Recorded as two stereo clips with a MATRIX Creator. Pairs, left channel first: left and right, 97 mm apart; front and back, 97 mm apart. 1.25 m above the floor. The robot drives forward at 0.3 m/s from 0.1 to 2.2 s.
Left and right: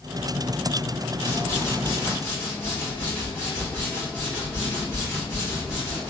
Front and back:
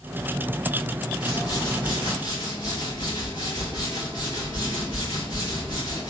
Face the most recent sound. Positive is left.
turn(degrees=155)